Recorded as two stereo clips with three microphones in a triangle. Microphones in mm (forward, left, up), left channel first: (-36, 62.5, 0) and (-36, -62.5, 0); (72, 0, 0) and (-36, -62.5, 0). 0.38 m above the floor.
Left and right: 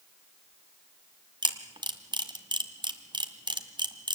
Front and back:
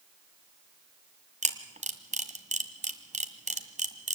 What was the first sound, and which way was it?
A camera shutter, 140° right.